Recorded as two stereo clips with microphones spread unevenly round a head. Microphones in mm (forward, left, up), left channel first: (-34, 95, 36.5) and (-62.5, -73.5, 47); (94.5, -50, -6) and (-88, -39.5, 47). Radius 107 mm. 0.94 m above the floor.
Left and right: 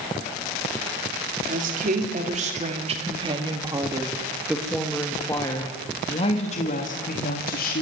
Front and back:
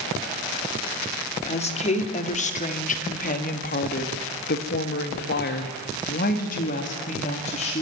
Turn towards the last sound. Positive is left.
turn(degrees=50)